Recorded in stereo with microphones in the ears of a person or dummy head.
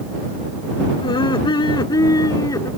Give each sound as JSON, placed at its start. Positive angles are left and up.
{"t": 1.0, "sound": "laughter", "side_deg": 35}